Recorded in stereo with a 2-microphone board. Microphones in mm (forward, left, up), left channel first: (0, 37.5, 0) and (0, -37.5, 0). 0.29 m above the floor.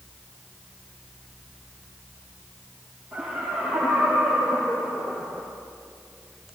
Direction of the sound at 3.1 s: 10° right (ahead or behind).